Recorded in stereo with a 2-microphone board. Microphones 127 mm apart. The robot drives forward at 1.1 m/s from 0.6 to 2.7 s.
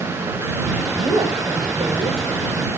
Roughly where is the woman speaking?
Right.